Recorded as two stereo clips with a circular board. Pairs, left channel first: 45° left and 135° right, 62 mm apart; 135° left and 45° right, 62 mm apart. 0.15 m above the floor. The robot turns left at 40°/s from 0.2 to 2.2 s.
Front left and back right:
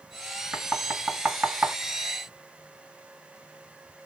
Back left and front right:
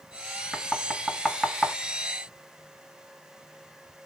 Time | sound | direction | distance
0.5 | knocking | 95° right | 1.3 m